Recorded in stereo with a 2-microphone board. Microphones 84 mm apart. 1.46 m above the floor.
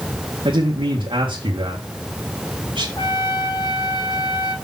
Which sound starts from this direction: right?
A man speaking, at 0.5 s.